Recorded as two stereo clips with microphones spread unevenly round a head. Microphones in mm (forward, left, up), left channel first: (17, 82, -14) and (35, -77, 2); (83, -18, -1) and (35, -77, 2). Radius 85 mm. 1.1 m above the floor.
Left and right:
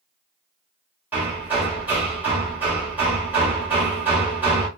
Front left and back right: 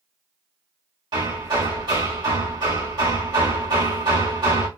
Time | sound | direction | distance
1.1 | hammering | 160° right | 1.4 m